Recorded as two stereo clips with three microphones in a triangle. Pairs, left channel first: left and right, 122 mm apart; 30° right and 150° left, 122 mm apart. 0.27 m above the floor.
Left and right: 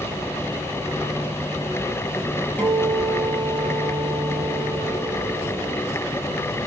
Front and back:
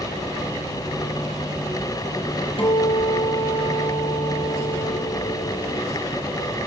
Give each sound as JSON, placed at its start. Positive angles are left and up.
{"t": 2.6, "sound": "a guitar", "azimuth_deg": 15, "distance_m": 6.5}